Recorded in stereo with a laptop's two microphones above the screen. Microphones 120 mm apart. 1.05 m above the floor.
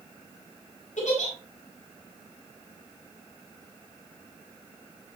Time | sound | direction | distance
1.0 | a giggle | 90° left | 4 m